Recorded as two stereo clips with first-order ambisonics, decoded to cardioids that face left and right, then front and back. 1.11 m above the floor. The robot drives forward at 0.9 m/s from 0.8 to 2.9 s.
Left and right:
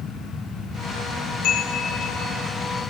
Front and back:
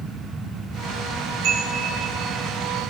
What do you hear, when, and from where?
1.4 s a chime: 140° left, 2 m; by 2.4 s 150° left, 3 m